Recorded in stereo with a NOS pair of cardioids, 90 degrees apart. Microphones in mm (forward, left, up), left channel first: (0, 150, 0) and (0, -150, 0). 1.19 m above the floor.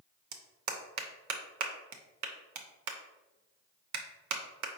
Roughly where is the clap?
Right.